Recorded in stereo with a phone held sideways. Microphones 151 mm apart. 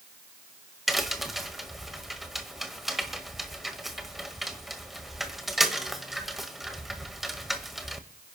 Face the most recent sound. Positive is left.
turn(degrees=0)  # may be behind; listen again after turning